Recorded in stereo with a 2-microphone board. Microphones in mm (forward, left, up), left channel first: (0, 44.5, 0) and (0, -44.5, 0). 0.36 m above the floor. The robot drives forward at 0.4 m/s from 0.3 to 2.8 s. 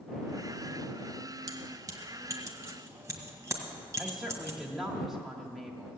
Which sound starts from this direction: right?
Keys jangling, at 1.5 s.